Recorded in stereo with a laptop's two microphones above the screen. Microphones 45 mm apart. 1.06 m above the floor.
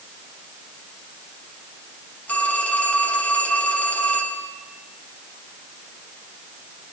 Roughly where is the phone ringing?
Left.